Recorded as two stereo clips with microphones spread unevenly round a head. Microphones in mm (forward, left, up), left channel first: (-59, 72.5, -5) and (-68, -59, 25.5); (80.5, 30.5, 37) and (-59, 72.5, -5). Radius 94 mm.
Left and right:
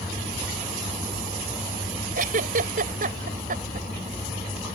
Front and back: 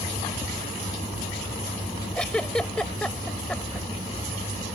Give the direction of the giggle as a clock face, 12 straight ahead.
3 o'clock.